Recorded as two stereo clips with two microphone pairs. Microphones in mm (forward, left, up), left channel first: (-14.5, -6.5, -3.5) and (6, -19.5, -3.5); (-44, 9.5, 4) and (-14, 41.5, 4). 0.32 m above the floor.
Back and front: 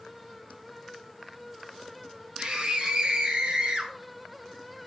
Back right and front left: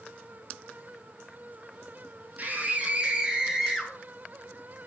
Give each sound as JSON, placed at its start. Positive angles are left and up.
{"t": 2.4, "sound": "a scream", "azimuth_deg": 10, "distance_m": 3.0}